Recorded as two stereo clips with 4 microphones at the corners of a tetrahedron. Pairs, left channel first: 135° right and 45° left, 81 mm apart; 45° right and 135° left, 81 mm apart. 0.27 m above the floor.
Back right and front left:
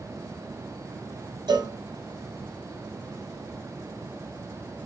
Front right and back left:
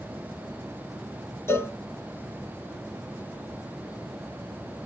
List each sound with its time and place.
1.5 s a cowbell: 15° left, 0.7 m